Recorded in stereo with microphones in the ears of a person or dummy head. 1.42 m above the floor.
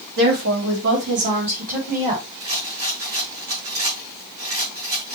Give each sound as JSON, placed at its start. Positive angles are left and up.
{"t": 0.2, "sound": "a woman speaking", "side_deg": -65, "distance_m": 3.0}
{"t": 2.4, "sound": "a rattle", "side_deg": -45, "distance_m": 5.0}